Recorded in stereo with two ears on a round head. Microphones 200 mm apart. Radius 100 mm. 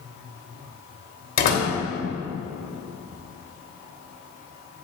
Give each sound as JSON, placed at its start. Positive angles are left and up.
{"t": 1.4, "sound": "a door slam", "side_deg": 45, "distance_m": 3.0}